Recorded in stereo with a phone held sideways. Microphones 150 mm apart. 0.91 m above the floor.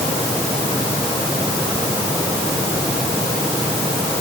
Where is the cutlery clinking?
No cutlery clinking in this recording.